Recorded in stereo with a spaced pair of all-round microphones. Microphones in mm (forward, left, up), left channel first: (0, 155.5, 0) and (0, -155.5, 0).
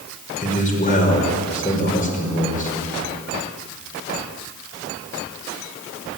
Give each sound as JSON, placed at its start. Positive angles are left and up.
{"t": 0.4, "sound": "a man speaking", "side_deg": 25, "distance_m": 5.5}